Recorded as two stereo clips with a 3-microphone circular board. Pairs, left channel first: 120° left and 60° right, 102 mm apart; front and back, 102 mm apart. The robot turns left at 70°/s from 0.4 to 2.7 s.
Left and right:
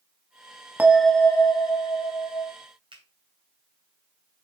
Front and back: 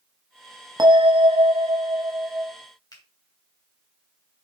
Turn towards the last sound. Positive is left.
turn(degrees=-40)